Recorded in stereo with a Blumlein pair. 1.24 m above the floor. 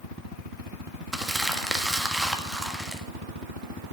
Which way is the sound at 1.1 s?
5° right.